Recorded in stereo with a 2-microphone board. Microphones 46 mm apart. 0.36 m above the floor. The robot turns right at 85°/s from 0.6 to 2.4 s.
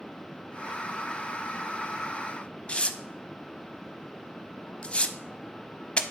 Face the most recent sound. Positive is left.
turn(degrees=20)  # may be behind; listen again after turning